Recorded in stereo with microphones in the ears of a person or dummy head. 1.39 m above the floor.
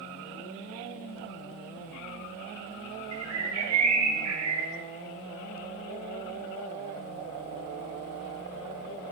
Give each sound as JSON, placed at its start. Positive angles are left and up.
{"t": 3.1, "sound": "a bird", "side_deg": -70, "distance_m": 0.5}